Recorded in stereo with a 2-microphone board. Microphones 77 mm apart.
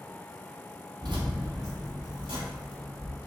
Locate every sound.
1.0 s keys jangling: 65° right (ahead or behind), 0.9 m; by 3.2 s 75° right (ahead or behind), 2.5 m